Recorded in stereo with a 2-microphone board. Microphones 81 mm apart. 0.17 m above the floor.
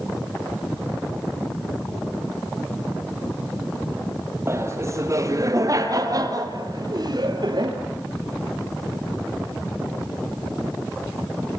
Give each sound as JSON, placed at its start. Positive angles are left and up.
{"t": 4.5, "sound": "laughter", "side_deg": -35, "distance_m": 4.0}